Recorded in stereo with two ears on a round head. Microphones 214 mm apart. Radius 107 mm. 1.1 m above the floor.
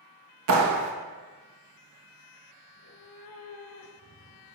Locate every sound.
0.5 s a clap: 65° right (ahead or behind), 1.6 m
2.7 s a cat meowing: 65° left (ahead or behind), 2.5 m